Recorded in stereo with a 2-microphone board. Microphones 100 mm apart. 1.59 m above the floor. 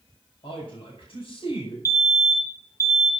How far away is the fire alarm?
About 4 m.